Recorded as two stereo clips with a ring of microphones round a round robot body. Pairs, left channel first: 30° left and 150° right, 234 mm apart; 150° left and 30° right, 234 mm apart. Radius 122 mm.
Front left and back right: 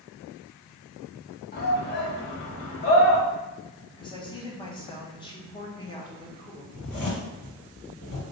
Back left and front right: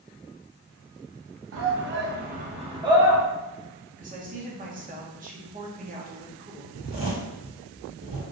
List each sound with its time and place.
1.5 s a shout: 15° right, 0.9 m; by 3.2 s 50° left, 0.9 m
4.0 s a woman speaking: 25° right, 0.9 m
6.7 s a zipper: 35° left, 1.6 m